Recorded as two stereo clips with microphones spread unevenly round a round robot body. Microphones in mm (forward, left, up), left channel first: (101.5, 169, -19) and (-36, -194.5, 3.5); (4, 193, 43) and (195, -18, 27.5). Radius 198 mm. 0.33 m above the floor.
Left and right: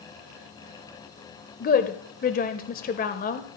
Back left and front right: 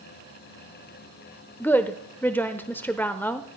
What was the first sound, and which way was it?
A woman speaking, 50° left.